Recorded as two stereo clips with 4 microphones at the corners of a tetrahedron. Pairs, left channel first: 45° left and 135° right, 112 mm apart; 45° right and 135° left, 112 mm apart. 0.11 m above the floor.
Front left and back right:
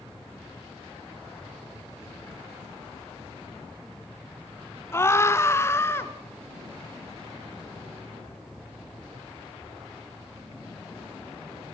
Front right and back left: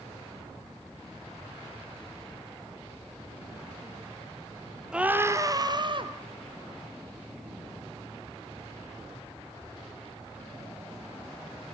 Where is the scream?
65° left, 1.4 m; by 6.1 s 110° left, 2.5 m.